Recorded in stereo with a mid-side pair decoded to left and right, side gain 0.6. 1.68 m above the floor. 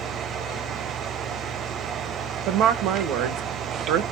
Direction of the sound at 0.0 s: 45° right.